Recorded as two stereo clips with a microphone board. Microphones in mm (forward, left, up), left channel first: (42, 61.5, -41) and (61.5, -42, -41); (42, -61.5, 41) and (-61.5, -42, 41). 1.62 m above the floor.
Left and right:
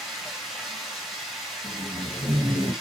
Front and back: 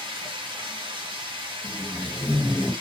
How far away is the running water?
About 0.9 m.